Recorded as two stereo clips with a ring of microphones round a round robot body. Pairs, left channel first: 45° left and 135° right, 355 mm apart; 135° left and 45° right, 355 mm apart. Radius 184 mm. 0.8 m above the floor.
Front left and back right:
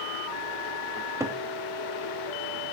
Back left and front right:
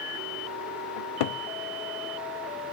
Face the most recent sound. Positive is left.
turn(degrees=145)